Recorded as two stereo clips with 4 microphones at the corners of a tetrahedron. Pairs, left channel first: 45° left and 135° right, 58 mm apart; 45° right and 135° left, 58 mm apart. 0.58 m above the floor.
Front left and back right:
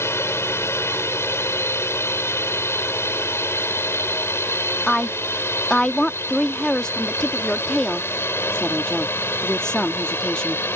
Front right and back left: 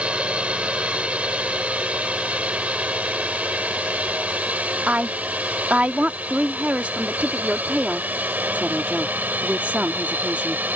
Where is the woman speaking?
105° left.